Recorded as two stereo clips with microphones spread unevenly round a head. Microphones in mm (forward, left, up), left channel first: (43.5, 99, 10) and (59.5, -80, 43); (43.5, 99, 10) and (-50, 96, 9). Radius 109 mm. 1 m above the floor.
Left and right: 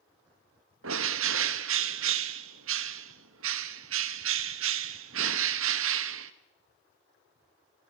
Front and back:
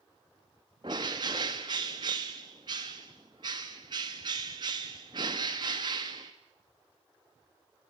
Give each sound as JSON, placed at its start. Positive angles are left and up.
{"t": 0.8, "sound": "a bird", "azimuth_deg": -110, "distance_m": 1.1}